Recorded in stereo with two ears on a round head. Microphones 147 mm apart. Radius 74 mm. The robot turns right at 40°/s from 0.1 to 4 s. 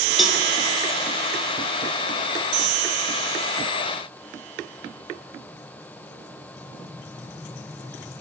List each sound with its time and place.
0.2 s a cowbell: centre (ahead or behind), 0.5 m; by 0.4 s 5° right (ahead or behind), 0.5 m